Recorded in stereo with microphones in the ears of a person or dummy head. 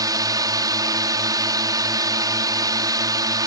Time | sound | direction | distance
0.0 | a drone | 15° right (ahead or behind) | ?